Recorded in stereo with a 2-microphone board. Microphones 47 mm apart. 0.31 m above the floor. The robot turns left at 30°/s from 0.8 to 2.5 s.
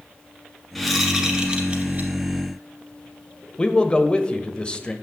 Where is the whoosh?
Straight ahead, 1.9 m; by 2.1 s 40° right, 1.9 m.